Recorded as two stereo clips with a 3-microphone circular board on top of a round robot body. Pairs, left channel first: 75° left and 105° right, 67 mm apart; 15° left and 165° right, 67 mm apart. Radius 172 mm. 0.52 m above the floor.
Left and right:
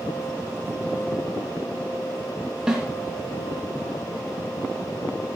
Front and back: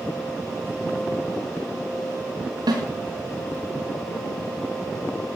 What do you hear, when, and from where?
2.7 s a snare drum: 175° left, 3.5 m